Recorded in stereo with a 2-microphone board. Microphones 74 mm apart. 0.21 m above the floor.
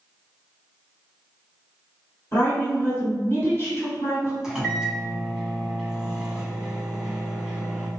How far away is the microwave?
About 1.0 m.